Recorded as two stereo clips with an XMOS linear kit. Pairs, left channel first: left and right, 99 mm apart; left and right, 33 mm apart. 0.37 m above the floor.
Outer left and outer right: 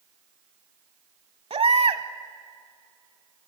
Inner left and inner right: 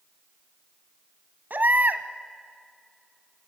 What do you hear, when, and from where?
1.5 s a baby crying: 80° right, 0.9 m